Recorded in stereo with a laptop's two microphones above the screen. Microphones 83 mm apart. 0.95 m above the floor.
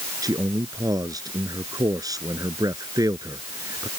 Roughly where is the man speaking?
Right.